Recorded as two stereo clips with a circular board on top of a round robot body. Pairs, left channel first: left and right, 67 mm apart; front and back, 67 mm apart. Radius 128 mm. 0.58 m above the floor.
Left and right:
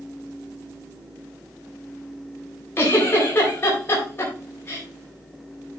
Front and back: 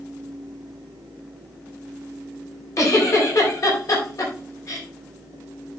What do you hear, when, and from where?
2.8 s a giggle: 35° left, 4 m